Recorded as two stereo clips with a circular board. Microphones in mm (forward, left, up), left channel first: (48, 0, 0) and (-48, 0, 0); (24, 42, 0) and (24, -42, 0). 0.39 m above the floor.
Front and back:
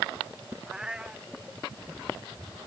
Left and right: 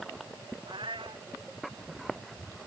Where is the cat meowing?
95° right.